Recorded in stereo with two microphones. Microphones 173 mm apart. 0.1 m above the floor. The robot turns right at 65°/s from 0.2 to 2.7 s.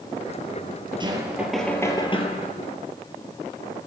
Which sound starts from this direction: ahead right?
Knocking, at 1.0 s.